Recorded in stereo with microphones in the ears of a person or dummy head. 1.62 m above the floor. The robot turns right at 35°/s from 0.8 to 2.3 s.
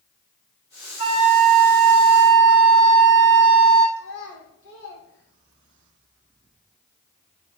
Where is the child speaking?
75° left (ahead or behind), 1.8 m.